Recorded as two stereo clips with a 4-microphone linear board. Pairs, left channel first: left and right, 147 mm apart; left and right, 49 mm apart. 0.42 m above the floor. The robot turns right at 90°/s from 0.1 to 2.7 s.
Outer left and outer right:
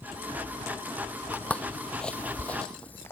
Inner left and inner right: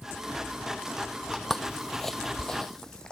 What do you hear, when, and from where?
1.3 s footsteps: 15° left (ahead or behind)